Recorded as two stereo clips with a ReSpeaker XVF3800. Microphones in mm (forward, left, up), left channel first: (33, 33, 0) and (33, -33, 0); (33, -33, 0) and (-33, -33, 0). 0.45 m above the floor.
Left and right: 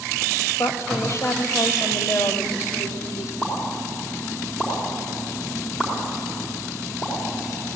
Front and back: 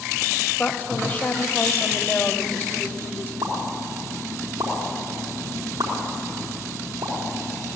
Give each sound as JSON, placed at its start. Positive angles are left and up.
{"t": 0.6, "sound": "a woman speaking", "azimuth_deg": 55, "distance_m": 1.8}
{"t": 3.4, "sound": "a pop", "azimuth_deg": 160, "distance_m": 4.0}